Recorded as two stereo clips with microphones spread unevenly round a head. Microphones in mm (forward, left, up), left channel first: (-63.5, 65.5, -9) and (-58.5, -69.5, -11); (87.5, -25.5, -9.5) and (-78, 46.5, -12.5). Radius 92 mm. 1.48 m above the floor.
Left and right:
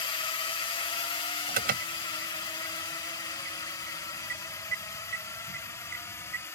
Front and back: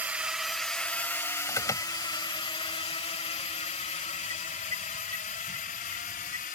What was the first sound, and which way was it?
A drone, 85° left.